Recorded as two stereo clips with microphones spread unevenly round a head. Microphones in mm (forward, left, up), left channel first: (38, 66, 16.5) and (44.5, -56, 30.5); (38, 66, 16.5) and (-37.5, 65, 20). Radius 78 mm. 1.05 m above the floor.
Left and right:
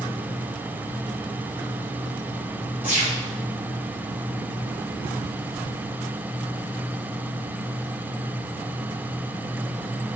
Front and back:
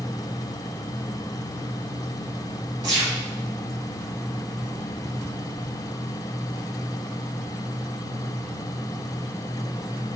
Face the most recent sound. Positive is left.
turn(degrees=-165)